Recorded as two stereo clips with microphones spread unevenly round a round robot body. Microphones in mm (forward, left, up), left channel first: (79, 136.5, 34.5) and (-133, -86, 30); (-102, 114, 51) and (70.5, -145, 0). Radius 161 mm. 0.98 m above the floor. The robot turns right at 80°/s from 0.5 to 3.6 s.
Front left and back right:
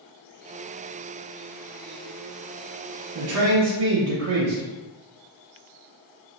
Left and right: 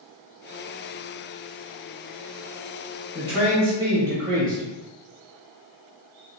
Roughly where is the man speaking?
Behind.